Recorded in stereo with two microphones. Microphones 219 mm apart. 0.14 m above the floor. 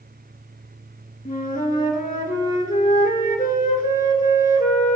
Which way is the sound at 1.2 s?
40° left (ahead or behind).